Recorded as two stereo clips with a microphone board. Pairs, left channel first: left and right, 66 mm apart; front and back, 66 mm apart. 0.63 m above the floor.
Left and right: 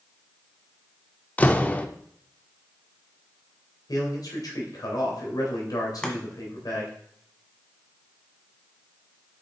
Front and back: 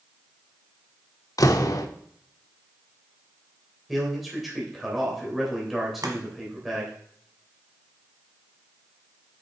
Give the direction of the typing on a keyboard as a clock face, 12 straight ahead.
No typing on a keyboard in this recording.